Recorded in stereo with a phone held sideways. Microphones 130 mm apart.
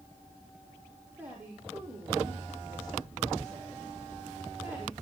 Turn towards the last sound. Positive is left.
turn(degrees=-15)  # may be behind; listen again after turning